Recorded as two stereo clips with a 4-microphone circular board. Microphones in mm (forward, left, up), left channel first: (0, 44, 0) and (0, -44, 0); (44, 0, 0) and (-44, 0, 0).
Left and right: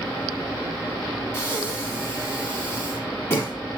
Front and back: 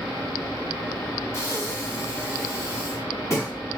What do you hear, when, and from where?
1.3 s breathing: 40° left, 1.1 m